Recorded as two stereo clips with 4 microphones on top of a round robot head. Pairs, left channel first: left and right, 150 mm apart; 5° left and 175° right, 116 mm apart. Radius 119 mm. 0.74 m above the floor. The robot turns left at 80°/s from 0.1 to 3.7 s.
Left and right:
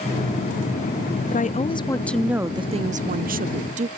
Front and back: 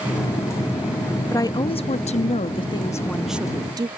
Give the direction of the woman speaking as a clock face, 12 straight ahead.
10 o'clock.